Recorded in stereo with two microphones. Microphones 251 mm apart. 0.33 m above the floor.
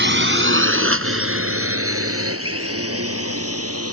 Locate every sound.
0.0 s a drone: 45° right (ahead or behind); by 3.9 s 65° right (ahead or behind)